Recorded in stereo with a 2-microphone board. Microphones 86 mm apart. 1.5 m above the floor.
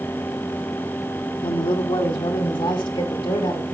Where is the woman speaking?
70° left (ahead or behind), 0.6 m; by 3.8 s 75° left (ahead or behind), 2.5 m.